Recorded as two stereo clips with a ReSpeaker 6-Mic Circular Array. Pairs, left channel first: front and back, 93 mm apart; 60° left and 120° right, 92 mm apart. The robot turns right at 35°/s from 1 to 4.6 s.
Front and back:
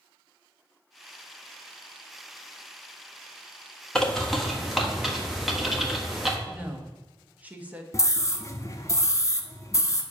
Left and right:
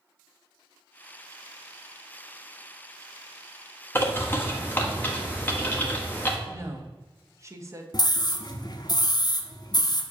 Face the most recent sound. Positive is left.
turn(degrees=45)